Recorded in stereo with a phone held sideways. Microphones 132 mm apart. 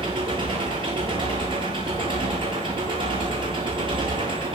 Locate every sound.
0.0 s an engine running: 40° right (ahead or behind), 9.5 m